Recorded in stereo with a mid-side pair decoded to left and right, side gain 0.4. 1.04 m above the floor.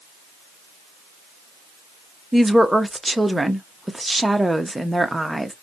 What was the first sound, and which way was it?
A woman speaking, 10° right.